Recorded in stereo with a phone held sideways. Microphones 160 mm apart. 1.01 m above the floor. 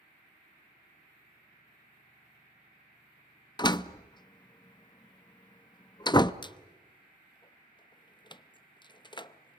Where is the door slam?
25° left (ahead or behind), 0.6 m.